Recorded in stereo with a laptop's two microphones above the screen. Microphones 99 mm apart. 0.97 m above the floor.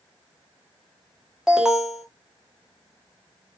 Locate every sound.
1.5 s an alarm: 5° right (ahead or behind), 1.1 m